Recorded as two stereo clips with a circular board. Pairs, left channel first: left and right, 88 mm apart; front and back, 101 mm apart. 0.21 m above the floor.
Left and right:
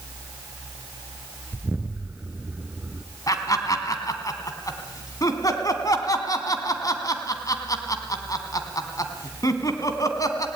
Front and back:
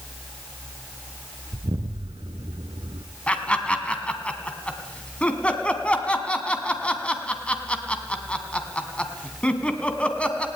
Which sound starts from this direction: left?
Laughter, at 3.3 s.